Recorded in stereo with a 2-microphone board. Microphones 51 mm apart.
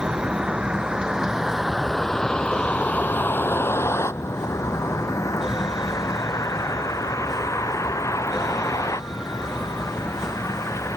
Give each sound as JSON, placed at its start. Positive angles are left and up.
{"t": 0.0, "sound": "a vehicle", "side_deg": -25}